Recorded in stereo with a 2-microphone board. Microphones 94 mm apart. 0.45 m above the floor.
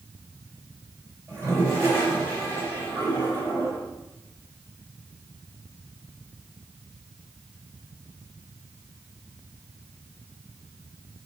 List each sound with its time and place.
1.3 s a toilet flushing: 35° right (ahead or behind), 2.5 m